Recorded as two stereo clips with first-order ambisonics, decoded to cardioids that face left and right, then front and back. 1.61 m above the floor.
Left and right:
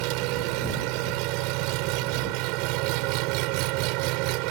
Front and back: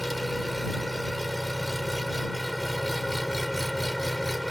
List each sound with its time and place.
0.0 s an engine running: 90° right